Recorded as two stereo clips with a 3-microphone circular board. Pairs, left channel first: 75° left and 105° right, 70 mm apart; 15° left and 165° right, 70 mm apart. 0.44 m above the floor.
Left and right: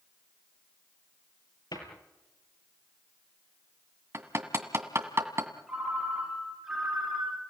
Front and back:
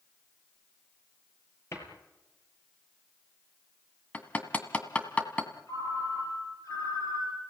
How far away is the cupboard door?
About 5.5 m.